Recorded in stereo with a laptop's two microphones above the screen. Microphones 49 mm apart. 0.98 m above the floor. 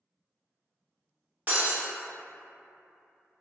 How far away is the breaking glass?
About 0.8 m.